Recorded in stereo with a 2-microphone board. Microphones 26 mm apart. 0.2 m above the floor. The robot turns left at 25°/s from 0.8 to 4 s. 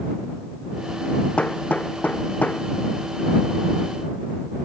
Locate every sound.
1.4 s hammering: 50° left (ahead or behind); by 2.6 s 80° left